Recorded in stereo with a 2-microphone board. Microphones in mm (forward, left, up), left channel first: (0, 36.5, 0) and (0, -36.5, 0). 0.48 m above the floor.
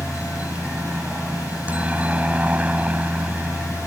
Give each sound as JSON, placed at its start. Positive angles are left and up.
{"t": 0.0, "sound": "a helicopter", "side_deg": -20}